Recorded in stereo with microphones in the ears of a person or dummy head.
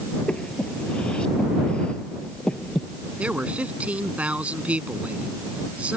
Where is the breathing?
5° left (ahead or behind).